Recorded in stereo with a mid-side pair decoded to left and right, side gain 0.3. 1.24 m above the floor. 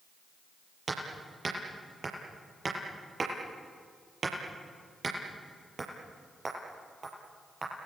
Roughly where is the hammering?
Ahead right.